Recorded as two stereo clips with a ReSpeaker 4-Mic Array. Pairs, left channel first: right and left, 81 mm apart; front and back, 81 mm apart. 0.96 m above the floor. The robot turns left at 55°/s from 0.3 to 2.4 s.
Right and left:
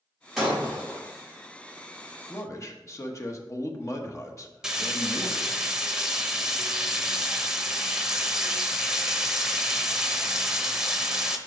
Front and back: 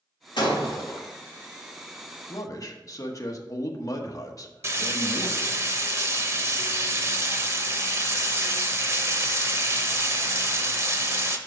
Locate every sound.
0.4 s breaking glass: straight ahead, 4 m; by 1.1 s 35° right, 4 m
2.3 s a man speaking: 35° right, 1.0 m; by 5.5 s 40° right, 1.0 m
4.6 s frying: 170° left, 0.8 m